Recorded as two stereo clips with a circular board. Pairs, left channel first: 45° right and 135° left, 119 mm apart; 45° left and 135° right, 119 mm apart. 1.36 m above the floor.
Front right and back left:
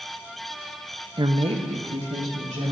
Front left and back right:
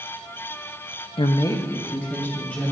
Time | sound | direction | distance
1.2 | a woman speaking | 85° left | 0.5 m